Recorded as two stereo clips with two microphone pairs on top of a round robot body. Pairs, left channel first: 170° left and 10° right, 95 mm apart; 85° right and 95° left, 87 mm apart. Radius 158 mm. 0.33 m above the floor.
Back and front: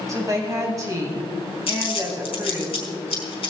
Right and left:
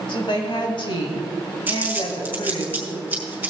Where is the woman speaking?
60° right, 3.5 m.